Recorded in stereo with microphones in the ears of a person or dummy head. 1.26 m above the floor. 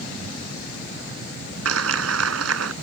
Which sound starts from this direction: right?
A clap, at 1.6 s.